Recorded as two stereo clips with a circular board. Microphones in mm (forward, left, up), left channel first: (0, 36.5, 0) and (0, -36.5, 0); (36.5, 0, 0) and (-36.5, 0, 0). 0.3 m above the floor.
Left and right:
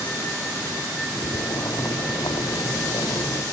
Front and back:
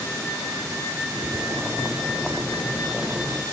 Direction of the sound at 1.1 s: 105° left.